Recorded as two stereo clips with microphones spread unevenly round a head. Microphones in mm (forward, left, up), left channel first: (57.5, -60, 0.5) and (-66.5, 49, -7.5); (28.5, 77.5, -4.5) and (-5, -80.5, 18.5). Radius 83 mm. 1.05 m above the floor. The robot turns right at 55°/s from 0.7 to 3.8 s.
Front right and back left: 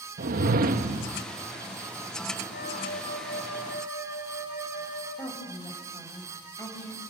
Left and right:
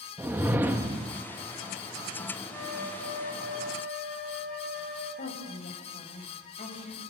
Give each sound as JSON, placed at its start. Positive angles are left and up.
{"t": 0.2, "sound": "a whoosh", "azimuth_deg": 175, "distance_m": 1.1}
{"t": 2.5, "sound": "a flute", "azimuth_deg": -5, "distance_m": 9.5}
{"t": 5.2, "sound": "a woman speaking", "azimuth_deg": 30, "distance_m": 6.0}